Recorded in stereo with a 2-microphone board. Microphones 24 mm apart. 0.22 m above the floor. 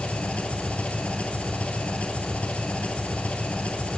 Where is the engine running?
65° left (ahead or behind), 1.3 m.